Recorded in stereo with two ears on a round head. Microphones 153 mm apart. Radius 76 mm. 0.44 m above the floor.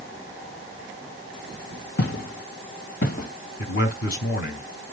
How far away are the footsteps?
About 2.5 m.